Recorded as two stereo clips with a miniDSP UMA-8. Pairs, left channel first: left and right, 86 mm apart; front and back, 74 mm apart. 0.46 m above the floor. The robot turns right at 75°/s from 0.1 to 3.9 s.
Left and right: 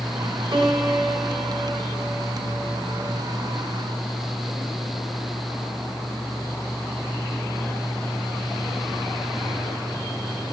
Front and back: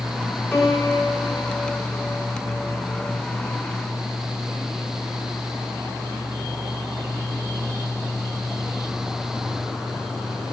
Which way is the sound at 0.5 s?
65° right.